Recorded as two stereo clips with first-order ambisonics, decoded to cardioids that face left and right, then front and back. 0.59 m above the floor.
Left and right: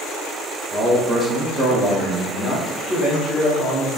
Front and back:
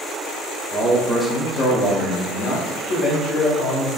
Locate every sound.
0.7 s a man speaking: 165° right, 0.7 m; by 3.9 s 10° right, 2.5 m